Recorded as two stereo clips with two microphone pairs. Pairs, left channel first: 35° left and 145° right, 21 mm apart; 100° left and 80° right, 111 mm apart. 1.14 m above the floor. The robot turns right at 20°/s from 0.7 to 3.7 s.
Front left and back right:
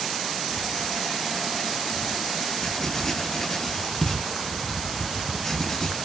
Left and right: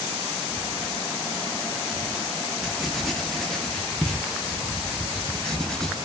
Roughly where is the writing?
Ahead.